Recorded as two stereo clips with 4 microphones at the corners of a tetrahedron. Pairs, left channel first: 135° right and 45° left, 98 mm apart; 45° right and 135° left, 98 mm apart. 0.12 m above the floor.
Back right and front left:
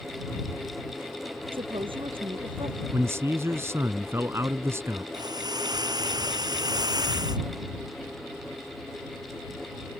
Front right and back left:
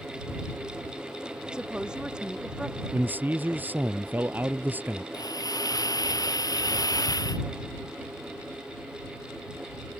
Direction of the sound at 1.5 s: 55° left.